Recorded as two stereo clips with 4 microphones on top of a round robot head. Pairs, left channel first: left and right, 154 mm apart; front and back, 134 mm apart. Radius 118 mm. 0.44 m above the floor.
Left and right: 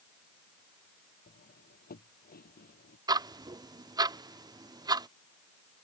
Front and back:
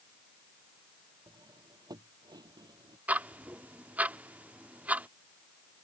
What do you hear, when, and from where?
1.3 s cutlery clinking: 120° left
3.1 s ticking: 115° right